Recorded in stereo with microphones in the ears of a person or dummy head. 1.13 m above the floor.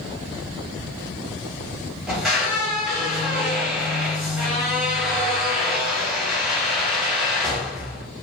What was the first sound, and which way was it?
A squeak, centre (ahead or behind).